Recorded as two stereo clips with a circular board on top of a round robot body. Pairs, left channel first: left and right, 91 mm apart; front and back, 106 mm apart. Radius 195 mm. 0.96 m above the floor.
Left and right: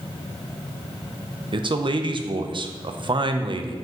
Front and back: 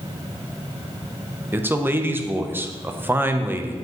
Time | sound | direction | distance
1.5 | a man speaking | 110° right | 0.8 m